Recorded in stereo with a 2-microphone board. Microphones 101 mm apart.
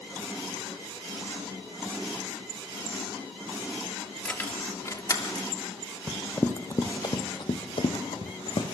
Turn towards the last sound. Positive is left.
turn(degrees=65)  # may be behind; listen again after turning